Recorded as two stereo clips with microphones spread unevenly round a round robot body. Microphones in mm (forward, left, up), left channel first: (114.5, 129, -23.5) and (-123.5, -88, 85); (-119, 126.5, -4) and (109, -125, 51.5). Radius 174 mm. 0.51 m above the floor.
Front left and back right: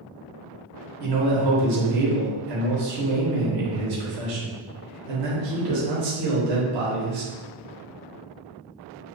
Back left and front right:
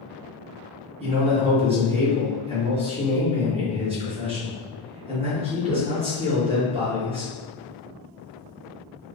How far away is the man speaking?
About 1.0 m.